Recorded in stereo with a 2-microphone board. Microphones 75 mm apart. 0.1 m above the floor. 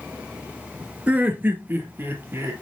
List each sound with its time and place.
1.1 s laughter: 20° right (ahead or behind), 1.1 m; by 2.5 s 35° right (ahead or behind), 2.5 m